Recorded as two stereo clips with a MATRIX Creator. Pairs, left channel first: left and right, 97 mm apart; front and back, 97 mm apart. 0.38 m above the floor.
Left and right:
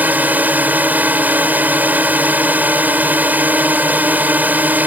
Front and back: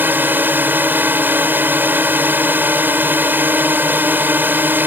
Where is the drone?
140° right.